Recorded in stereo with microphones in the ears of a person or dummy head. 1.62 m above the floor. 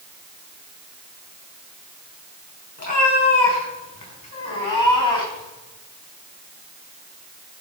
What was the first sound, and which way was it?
A cat meowing, 45° left (ahead or behind).